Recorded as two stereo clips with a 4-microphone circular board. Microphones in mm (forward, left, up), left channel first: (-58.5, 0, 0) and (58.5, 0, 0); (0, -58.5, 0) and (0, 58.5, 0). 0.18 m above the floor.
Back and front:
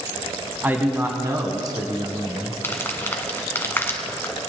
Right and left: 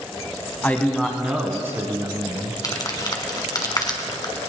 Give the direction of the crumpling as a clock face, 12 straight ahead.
4 o'clock.